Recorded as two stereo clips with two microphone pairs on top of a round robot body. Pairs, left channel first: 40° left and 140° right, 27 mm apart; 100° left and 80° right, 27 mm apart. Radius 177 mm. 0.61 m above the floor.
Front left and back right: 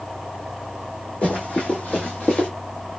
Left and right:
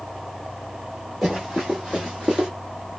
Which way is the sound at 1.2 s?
30° left.